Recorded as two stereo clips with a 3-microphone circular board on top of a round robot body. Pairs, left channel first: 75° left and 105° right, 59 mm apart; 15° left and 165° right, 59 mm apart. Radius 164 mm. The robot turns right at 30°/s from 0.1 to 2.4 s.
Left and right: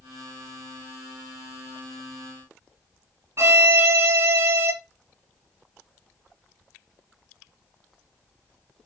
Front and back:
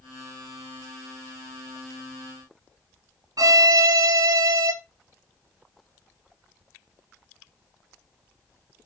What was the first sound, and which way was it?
A violin, 145° right.